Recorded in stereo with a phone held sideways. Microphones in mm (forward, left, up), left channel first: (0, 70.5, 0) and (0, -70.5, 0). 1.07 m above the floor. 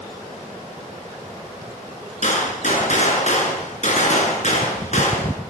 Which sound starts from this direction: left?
A gunshot, at 2.2 s.